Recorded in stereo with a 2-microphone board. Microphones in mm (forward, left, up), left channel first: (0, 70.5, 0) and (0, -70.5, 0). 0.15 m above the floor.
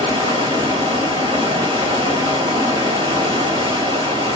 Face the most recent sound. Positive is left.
turn(degrees=-35)  # may be behind; listen again after turning